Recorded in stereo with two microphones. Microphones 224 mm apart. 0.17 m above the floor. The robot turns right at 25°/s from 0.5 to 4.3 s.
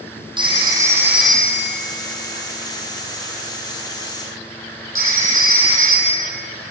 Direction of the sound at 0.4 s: 20° right (ahead or behind).